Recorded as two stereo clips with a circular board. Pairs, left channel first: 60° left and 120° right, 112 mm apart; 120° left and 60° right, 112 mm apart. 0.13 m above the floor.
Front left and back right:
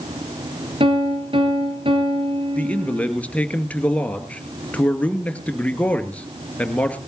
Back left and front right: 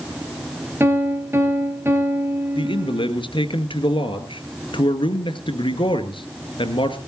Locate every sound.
0.8 s a piano: 125° right, 3.5 m
2.5 s a man speaking: 135° left, 1.9 m